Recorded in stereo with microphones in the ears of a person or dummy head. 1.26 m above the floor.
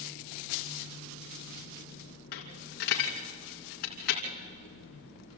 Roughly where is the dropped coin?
Left.